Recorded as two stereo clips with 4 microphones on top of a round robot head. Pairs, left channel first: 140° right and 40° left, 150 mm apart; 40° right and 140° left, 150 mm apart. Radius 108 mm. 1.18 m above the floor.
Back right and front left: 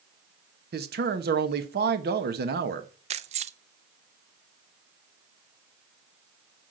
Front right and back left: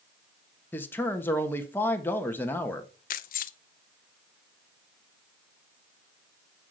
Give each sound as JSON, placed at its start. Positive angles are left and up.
{"t": 0.7, "sound": "a man speaking", "azimuth_deg": 35, "distance_m": 1.6}
{"t": 3.1, "sound": "keys jangling", "azimuth_deg": -5, "distance_m": 0.5}